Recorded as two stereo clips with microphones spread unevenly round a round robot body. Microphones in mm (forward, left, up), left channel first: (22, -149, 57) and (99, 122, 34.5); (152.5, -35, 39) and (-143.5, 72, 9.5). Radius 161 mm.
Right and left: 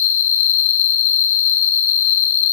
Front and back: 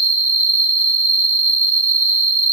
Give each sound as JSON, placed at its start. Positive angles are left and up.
{"t": 0.0, "sound": "an insect", "azimuth_deg": -100, "distance_m": 0.8}